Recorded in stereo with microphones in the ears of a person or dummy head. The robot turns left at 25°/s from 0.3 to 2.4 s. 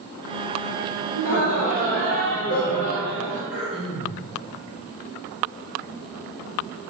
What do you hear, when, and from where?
1.1 s laughter: 70° left, 1.0 m; by 3.4 s 40° left, 1.0 m
3.5 s throat clearing: centre (ahead or behind), 1.9 m